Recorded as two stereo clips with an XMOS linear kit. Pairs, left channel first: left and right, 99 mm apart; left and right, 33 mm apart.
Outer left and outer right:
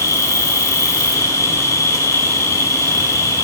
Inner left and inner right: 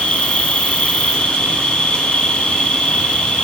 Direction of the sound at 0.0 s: 35° left (ahead or behind).